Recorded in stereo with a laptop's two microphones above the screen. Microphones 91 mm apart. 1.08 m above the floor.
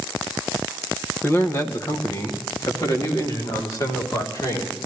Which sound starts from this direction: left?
A man speaking, at 1.2 s.